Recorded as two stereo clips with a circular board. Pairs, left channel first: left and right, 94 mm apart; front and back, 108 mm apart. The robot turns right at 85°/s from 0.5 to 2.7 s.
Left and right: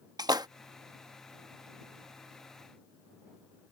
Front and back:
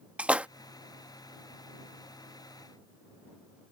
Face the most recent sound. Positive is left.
turn(degrees=80)